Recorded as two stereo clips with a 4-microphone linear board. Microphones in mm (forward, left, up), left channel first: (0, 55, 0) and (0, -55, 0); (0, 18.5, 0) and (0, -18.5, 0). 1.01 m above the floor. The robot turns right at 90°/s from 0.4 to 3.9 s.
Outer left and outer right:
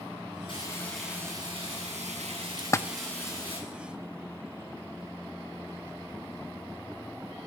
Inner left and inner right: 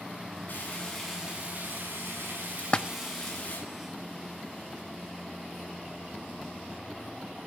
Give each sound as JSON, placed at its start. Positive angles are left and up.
{"t": 0.5, "sound": "frying", "azimuth_deg": 135, "distance_m": 9.5}
{"t": 2.6, "sound": "a splash", "side_deg": 35, "distance_m": 0.6}